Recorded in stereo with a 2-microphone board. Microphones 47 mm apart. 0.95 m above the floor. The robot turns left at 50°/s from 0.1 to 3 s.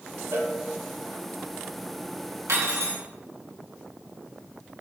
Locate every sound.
0.3 s a cowbell: 70° right (ahead or behind), 0.6 m
2.5 s cutlery clinking: 85° right, 0.7 m; by 3.0 s 70° right (ahead or behind), 0.7 m